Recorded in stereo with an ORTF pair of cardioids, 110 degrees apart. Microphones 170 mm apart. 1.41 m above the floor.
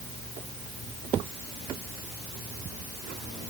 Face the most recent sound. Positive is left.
No sound to turn to.